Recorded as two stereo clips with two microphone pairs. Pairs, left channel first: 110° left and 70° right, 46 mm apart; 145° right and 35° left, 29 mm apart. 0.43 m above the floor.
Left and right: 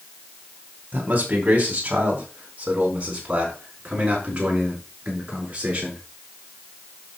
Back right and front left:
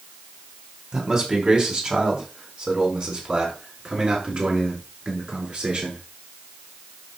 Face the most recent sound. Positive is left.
turn(degrees=-5)